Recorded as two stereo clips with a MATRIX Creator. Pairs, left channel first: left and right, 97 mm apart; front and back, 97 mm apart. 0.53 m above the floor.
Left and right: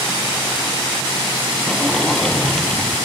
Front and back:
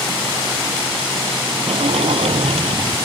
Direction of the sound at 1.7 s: 175° left.